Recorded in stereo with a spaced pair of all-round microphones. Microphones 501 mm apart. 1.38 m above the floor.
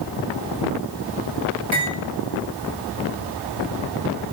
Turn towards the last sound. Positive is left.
turn(degrees=-70)  # may be behind; listen again after turning